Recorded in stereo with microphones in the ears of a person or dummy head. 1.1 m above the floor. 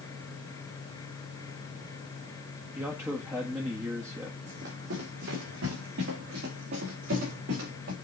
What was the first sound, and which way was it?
A man speaking, 10° right (ahead or behind).